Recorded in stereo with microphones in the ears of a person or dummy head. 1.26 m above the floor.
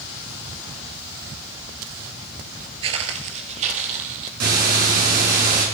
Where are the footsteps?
40° right (ahead or behind), 1.7 m; by 4.3 s 50° right (ahead or behind), 3 m.